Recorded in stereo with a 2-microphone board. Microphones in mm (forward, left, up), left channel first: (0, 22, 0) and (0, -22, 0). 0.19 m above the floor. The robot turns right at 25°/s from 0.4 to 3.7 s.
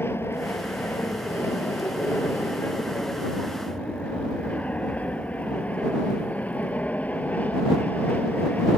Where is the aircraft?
60° left (ahead or behind); by 8.8 s 35° left (ahead or behind).